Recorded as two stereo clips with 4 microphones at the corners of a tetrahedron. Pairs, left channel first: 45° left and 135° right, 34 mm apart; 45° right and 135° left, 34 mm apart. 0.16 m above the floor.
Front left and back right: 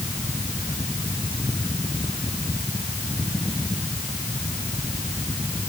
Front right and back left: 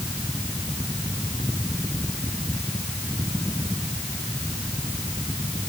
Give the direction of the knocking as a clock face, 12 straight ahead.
No knocking in this recording.